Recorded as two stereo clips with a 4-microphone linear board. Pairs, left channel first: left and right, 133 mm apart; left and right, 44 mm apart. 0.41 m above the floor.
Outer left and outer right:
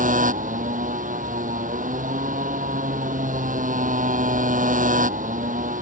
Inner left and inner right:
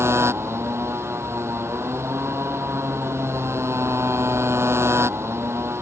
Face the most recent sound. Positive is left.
turn(degrees=-70)  # may be behind; listen again after turning